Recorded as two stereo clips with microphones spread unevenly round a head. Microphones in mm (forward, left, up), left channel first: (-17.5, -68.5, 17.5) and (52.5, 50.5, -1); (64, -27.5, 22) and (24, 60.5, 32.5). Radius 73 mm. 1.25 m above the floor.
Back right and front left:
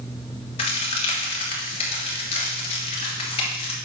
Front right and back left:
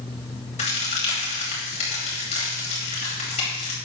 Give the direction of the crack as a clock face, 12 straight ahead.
2 o'clock.